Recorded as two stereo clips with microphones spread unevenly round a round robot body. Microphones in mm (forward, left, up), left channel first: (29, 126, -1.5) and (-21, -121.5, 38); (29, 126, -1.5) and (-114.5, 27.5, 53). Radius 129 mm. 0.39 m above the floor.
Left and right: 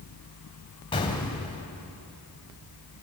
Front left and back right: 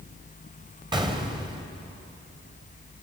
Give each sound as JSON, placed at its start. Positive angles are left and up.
{"t": 0.9, "sound": "an explosion", "azimuth_deg": 145, "distance_m": 2.5}